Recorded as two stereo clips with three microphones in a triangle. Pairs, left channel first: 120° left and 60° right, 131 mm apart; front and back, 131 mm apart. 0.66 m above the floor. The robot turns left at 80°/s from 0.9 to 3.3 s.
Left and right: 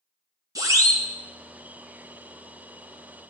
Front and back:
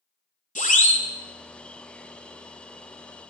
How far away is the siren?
About 2.5 m.